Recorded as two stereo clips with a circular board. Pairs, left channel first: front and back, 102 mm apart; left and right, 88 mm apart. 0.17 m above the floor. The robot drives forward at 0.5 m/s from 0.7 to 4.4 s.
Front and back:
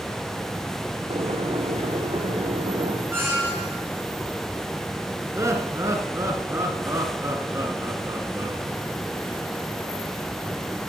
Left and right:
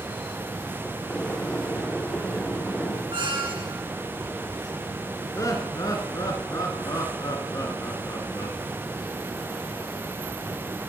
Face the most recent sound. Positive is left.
turn(degrees=125)